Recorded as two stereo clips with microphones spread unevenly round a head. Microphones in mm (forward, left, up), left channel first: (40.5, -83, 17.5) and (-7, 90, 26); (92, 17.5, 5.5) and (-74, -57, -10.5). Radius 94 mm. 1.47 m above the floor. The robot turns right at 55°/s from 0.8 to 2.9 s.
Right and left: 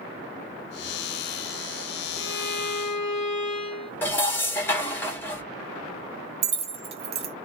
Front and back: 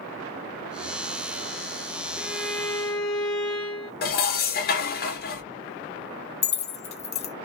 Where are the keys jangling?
60° left, 0.6 m.